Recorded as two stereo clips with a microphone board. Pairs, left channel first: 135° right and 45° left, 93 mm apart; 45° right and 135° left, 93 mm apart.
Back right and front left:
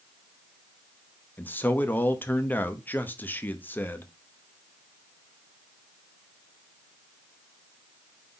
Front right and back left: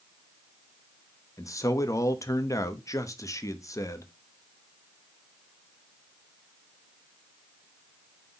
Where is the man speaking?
75° right, 0.9 m.